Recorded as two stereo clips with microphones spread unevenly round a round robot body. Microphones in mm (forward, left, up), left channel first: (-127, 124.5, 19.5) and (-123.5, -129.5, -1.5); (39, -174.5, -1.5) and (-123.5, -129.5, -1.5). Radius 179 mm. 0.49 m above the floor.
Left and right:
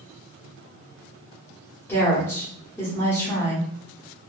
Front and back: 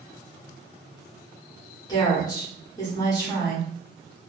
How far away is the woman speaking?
About 1.0 m.